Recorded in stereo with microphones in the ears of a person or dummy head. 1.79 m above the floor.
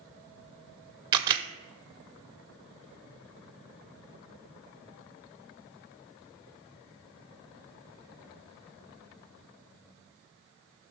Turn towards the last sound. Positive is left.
turn(degrees=-25)  # may be behind; listen again after turning